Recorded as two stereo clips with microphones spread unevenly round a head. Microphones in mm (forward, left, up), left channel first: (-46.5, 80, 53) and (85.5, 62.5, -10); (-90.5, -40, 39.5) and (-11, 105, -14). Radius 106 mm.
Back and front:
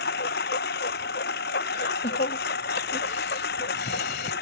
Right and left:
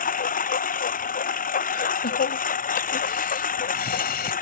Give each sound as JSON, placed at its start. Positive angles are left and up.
{"t": 0.0, "sound": "a lawn mower", "azimuth_deg": -155}
{"t": 1.7, "sound": "laughter", "azimuth_deg": -150}